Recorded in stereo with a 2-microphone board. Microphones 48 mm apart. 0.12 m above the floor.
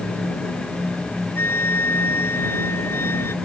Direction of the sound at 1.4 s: 60° left (ahead or behind).